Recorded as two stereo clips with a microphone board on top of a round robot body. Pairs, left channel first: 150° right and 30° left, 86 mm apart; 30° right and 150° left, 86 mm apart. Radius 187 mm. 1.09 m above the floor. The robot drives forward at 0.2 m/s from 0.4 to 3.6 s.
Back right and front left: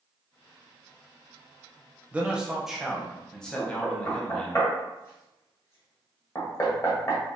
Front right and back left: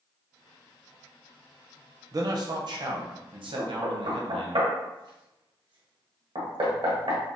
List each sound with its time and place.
2.1 s a man speaking: 105° left, 0.5 m; by 4.6 s 130° left, 0.6 m
3.6 s knocking: 155° left, 0.9 m